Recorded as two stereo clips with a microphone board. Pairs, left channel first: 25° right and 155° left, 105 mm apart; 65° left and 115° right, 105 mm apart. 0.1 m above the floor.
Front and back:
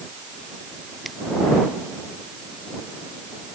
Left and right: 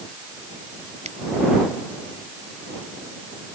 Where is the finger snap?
110° right.